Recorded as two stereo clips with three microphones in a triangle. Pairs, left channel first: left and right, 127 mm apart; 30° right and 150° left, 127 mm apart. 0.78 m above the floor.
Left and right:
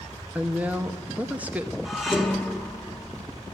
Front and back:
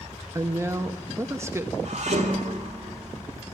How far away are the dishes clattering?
About 1.3 m.